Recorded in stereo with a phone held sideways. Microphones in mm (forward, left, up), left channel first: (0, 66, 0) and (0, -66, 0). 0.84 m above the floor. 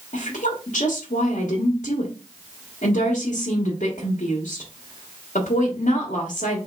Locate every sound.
0.1 s a woman speaking: 70° left (ahead or behind), 1.2 m